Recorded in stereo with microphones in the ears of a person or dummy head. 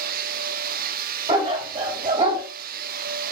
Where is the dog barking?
30° right (ahead or behind), 3.5 m.